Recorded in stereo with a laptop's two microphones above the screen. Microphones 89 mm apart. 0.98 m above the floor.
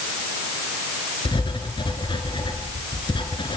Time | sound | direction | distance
1.2 | writing | 65° left (ahead or behind) | 3.5 m